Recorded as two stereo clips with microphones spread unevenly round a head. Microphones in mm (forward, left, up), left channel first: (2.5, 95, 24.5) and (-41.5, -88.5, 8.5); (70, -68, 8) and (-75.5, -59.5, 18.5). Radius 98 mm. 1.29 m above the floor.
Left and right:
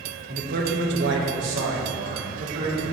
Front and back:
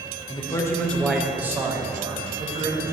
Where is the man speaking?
60° right, 1.6 m; by 2.8 s 135° right, 2.5 m.